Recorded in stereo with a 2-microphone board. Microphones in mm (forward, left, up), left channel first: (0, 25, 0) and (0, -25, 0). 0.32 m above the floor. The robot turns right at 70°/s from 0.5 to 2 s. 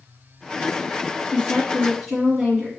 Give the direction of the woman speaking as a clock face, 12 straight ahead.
7 o'clock.